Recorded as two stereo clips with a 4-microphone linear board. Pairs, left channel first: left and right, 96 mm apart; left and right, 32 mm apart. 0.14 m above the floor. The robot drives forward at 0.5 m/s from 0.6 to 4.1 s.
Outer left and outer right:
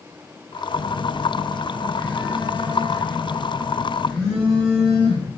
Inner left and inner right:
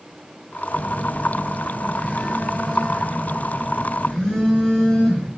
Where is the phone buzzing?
30° left (ahead or behind), 0.8 m; by 5.3 s 10° left (ahead or behind), 2 m.